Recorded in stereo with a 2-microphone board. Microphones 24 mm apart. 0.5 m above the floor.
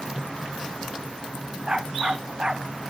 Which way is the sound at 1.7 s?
35° right (ahead or behind).